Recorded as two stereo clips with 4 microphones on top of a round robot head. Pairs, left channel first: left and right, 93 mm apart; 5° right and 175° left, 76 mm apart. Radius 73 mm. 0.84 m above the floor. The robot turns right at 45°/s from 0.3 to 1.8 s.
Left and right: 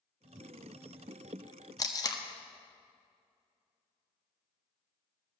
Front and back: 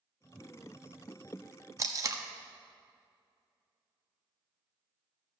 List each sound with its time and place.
1.8 s tape being pulled: 135° left, 1.3 m